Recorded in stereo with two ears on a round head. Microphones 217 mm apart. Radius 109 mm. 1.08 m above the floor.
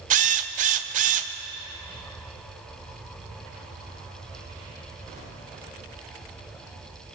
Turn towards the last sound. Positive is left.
turn(degrees=-30)  # may be behind; listen again after turning